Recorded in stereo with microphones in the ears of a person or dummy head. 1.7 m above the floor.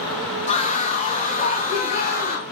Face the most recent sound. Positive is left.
turn(degrees=45)  # may be behind; listen again after turning